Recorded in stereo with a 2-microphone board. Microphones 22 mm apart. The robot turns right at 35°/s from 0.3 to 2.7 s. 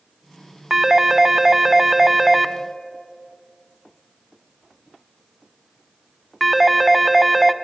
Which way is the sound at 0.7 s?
20° right (ahead or behind).